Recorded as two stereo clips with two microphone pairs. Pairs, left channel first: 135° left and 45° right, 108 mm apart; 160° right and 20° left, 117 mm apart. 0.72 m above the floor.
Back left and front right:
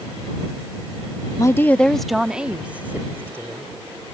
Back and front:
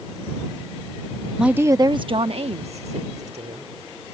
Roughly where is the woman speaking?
Left.